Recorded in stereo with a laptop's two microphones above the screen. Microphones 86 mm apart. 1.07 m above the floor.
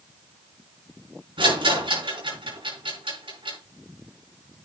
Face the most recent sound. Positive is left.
turn(degrees=-85)